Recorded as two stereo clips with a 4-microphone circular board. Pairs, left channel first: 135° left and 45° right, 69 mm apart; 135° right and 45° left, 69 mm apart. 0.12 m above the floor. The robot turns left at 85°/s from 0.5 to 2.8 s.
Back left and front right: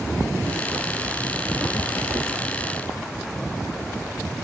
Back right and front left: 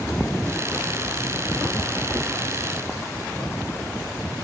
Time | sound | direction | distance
2.1 | knocking | 40° right | 3.5 m